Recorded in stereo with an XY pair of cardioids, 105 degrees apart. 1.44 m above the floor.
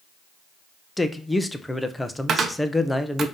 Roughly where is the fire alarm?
No fire alarm in this recording.